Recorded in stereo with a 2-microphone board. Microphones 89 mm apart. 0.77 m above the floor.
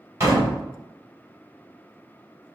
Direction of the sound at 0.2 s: 35° right (ahead or behind).